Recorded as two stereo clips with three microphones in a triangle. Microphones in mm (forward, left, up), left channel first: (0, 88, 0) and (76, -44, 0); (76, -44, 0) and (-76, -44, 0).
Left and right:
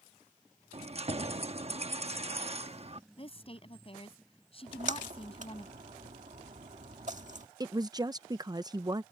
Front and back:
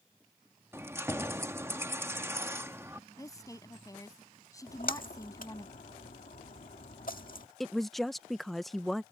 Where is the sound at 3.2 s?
70° left.